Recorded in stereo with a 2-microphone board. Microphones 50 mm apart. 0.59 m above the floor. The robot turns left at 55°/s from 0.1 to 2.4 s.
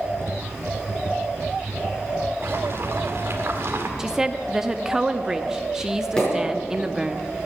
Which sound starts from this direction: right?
Boiling, at 2.4 s.